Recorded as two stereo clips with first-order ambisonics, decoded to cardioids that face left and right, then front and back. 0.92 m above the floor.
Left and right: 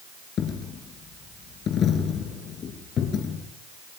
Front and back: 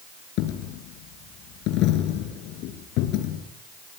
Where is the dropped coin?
30° left, 4 m.